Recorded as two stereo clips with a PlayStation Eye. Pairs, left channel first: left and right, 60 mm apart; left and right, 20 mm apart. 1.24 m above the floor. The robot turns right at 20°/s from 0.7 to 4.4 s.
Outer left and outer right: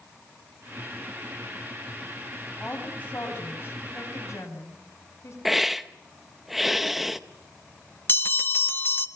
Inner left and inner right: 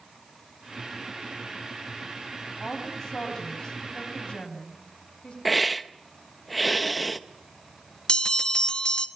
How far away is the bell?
About 1.2 m.